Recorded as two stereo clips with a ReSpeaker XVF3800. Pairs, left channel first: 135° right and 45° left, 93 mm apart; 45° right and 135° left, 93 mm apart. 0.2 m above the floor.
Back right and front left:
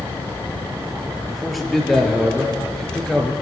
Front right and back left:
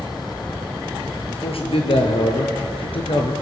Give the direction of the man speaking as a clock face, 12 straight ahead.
1 o'clock.